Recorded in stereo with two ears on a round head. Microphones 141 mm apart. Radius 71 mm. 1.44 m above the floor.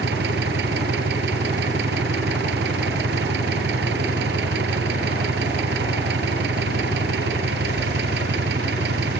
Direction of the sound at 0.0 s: 75° right (ahead or behind).